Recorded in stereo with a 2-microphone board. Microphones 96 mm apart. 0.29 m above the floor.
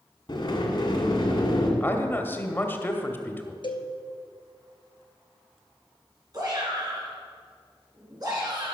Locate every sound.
0.3 s a sliding door: 55° left (ahead or behind), 1.9 m
1.8 s a man speaking: 25° left (ahead or behind), 0.9 m
3.6 s a cowbell: 65° left (ahead or behind), 1.0 m
6.3 s a shout: 45° right (ahead or behind), 3.5 m